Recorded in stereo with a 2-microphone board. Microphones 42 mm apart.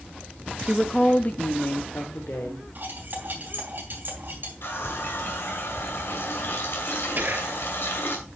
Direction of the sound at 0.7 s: 10° right (ahead or behind).